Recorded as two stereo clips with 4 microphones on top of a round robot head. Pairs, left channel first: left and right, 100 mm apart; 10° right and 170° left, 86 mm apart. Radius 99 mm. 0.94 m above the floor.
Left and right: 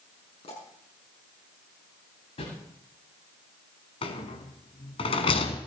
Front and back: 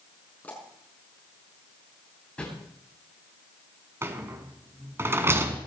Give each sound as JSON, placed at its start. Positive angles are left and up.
{"t": 0.4, "sound": "a pop", "azimuth_deg": 60, "distance_m": 6.0}
{"t": 2.4, "sound": "a whoosh", "azimuth_deg": 65, "distance_m": 9.0}
{"t": 4.0, "sound": "a rattle", "azimuth_deg": 110, "distance_m": 1.7}